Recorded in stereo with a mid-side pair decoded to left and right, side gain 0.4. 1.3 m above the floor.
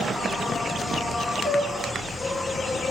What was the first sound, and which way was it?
An insect, 25° left.